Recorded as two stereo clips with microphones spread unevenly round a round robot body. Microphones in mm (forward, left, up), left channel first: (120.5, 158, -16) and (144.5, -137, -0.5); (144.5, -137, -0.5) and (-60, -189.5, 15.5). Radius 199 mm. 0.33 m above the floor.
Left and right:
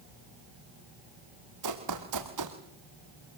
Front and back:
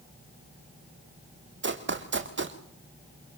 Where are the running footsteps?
135° right, 3.5 m.